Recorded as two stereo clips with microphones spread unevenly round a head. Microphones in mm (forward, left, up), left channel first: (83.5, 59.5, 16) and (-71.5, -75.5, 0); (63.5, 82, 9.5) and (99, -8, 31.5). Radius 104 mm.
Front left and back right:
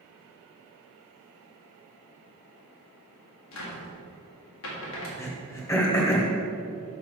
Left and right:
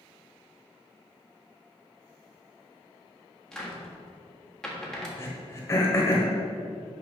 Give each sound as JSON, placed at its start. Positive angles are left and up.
{"t": 3.5, "sound": "a cupboard door", "azimuth_deg": 25, "distance_m": 1.7}
{"t": 5.2, "sound": "throat clearing", "azimuth_deg": 65, "distance_m": 1.2}